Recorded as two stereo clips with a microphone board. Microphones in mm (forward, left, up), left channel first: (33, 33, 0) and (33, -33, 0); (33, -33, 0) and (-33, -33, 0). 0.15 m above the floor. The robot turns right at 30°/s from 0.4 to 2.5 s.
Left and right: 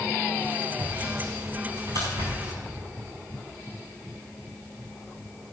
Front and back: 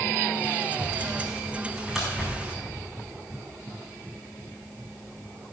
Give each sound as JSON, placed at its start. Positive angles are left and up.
{"t": 0.8, "sound": "sawing", "azimuth_deg": -125, "distance_m": 4.5}